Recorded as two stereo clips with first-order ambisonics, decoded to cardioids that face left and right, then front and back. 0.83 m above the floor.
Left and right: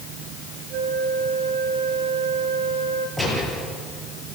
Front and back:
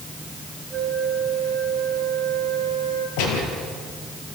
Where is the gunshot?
10° right, 6.5 m.